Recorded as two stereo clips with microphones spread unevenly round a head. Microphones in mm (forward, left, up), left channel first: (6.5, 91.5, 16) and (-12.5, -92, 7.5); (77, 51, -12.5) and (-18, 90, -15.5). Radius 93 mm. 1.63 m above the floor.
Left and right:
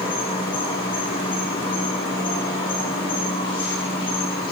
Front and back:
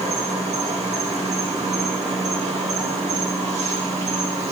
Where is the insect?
150° left, 2.5 m.